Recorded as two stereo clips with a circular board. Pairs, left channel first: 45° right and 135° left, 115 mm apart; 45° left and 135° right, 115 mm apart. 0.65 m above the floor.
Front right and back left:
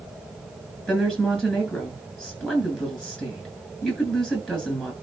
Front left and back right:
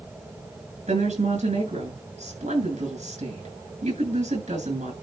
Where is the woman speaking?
125° right, 8 m.